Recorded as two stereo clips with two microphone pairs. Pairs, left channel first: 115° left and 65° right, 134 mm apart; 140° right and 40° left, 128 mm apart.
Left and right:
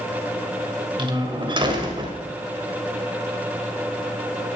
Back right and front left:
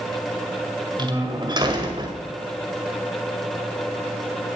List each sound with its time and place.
1.0 s a door slam: 15° right, 1.9 m